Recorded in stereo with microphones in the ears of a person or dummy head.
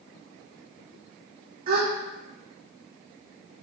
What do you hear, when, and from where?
1.7 s a gasp: 45° right (ahead or behind), 0.5 m